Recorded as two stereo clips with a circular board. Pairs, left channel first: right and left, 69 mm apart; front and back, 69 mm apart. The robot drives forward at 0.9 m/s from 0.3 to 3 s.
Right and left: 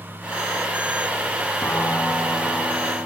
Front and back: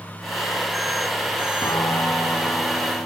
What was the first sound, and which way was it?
A piano, 35° right.